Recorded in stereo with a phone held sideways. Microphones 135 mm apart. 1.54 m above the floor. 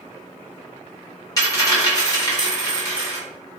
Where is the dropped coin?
25° left (ahead or behind), 0.9 m.